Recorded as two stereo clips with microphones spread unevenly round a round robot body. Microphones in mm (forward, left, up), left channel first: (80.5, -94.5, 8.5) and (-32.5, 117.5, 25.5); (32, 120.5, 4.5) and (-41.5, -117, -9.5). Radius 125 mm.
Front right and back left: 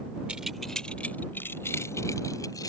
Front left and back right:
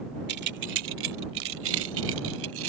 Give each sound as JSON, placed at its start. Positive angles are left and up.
{"t": 0.3, "sound": "keys jangling", "azimuth_deg": -155}